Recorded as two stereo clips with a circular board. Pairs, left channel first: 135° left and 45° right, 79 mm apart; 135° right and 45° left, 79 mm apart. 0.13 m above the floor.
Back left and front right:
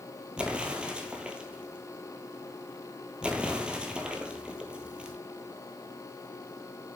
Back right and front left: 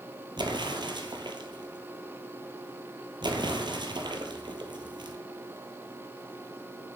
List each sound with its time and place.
0.4 s an explosion: 30° left, 1.0 m